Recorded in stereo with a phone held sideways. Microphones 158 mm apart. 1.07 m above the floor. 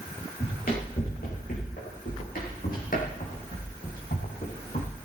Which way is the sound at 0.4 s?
65° left (ahead or behind).